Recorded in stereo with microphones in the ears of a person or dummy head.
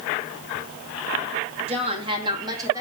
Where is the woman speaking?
35° right (ahead or behind), 2 m; by 2.8 s 20° right (ahead or behind), 2.5 m.